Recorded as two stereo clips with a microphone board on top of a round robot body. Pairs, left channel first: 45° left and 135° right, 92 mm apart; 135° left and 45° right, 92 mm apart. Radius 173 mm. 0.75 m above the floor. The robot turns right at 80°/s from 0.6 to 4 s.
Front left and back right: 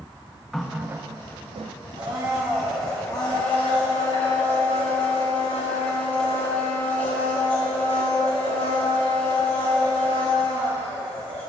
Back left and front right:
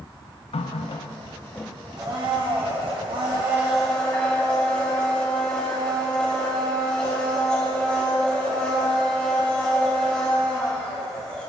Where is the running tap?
135° left, 0.5 m; by 1.8 s 135° right, 0.5 m.